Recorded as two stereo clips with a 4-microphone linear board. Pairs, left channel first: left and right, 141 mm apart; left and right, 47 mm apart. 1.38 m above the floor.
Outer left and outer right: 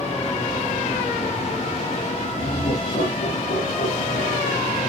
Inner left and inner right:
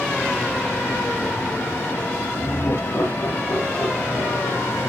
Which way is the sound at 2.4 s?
85° left.